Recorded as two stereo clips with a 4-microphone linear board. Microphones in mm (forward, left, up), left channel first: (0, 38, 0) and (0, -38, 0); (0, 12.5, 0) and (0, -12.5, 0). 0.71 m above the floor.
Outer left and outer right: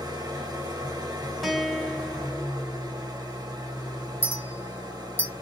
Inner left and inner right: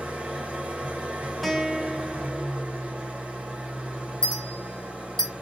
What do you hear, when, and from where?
0.0 s an engine running: 55° right (ahead or behind), 1.6 m
1.4 s a guitar: centre (ahead or behind), 0.9 m
4.2 s a clink: 30° left (ahead or behind), 1.3 m